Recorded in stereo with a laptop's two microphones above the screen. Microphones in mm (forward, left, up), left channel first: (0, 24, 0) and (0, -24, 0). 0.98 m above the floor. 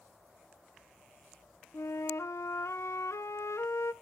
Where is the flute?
75° left (ahead or behind), 0.8 m.